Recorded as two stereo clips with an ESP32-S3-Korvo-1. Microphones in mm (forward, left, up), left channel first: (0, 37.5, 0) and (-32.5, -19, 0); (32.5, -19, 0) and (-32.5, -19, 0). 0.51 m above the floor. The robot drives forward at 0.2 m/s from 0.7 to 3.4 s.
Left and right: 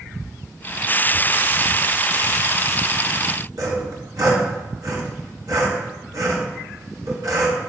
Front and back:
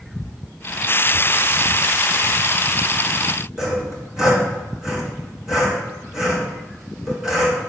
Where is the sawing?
100° right, 3 m.